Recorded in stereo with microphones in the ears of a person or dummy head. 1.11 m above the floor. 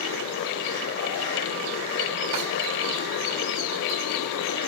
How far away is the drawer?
About 2.5 m.